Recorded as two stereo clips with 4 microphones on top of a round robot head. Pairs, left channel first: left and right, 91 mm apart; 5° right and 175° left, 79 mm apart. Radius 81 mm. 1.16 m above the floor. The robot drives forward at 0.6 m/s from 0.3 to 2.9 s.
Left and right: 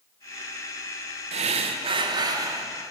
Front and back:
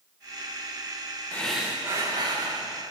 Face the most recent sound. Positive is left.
turn(degrees=-150)